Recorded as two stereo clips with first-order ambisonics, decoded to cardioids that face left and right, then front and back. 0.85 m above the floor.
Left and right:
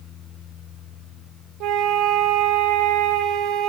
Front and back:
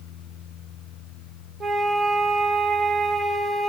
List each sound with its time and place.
1.6 s a flute: 115° right, 1.0 m